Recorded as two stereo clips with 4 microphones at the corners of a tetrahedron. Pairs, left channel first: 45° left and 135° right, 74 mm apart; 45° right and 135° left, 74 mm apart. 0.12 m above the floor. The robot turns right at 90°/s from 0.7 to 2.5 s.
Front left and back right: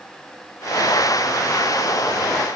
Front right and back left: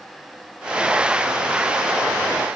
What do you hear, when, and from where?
Only background noise.